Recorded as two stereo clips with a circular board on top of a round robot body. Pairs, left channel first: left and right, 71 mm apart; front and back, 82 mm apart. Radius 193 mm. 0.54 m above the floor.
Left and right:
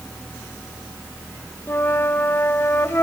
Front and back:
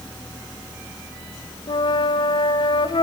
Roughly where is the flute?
Ahead left.